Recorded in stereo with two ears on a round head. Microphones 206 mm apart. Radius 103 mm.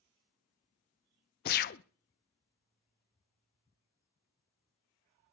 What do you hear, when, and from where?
1.4 s a gunshot: 45° left (ahead or behind), 0.5 m